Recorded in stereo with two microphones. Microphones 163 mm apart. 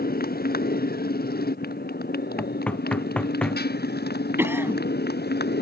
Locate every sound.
0.0 s a motorcycle: 65° left (ahead or behind); by 5.6 s 80° left
2.4 s knocking: 10° left (ahead or behind)
4.4 s a cough: 15° right (ahead or behind)